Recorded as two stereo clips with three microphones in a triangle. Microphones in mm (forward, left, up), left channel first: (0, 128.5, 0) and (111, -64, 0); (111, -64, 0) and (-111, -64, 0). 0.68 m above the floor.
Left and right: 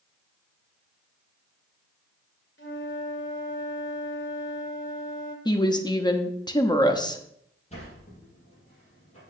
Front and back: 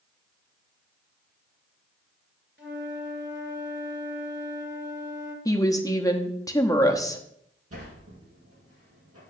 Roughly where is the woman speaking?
Ahead left.